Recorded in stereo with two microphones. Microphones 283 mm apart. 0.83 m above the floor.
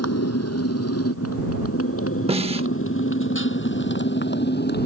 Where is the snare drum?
20° right (ahead or behind).